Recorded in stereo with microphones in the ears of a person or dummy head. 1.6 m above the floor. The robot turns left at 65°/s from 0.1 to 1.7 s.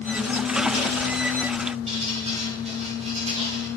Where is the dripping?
30° right (ahead or behind), 4.5 m.